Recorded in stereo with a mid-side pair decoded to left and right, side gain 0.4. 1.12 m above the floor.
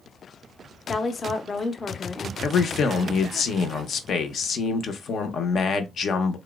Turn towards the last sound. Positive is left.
turn(degrees=60)